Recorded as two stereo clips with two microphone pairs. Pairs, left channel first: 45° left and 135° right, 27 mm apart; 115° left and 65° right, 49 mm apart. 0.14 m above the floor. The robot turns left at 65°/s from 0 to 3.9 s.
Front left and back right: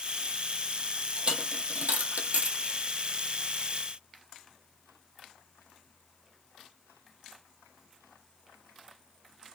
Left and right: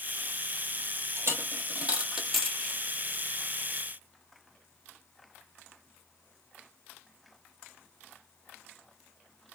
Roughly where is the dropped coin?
Right.